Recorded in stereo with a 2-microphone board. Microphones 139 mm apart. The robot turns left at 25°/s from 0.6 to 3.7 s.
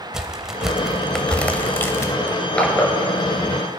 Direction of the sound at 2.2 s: Centre (ahead or behind).